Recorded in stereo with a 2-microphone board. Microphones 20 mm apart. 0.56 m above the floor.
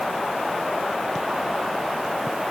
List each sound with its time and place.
Only background noise.